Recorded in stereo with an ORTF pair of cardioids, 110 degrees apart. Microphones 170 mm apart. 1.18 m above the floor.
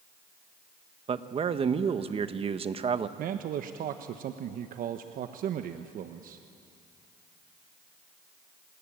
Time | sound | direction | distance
1.1 | a man speaking | 35° right | 1.3 m
3.2 | a man speaking | 60° right | 1.1 m